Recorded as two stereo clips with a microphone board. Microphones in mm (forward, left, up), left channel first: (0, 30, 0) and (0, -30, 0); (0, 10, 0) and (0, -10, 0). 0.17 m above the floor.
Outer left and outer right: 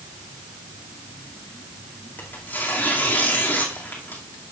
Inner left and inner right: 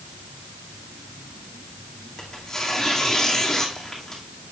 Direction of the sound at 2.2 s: 30° left (ahead or behind).